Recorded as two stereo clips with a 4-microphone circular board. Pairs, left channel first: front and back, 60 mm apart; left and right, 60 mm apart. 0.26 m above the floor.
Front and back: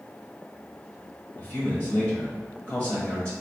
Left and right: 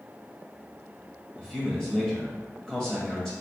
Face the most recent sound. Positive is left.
turn(degrees=25)